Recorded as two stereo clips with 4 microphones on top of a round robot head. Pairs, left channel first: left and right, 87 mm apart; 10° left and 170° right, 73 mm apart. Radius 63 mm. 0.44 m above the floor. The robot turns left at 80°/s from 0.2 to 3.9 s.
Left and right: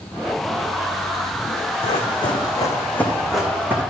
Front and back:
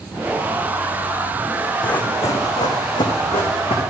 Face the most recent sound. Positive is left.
turn(degrees=-35)